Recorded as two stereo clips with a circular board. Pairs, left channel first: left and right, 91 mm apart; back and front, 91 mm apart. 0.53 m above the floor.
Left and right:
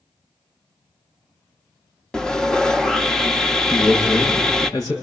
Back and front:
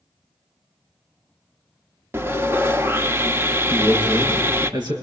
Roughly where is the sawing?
Ahead.